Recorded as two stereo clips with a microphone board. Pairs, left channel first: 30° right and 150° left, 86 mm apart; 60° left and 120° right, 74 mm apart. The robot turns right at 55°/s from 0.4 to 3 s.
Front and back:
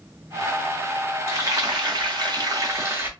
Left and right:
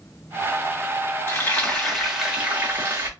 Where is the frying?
105° left, 1.4 m; by 3.1 s 160° right, 1.4 m.